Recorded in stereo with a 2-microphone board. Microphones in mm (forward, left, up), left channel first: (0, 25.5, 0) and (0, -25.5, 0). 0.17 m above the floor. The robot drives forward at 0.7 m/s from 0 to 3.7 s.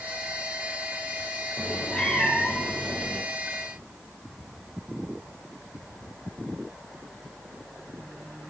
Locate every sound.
1.6 s a cat meowing: 15° left (ahead or behind), 3.5 m; by 3.2 s 20° left (ahead or behind), 2.5 m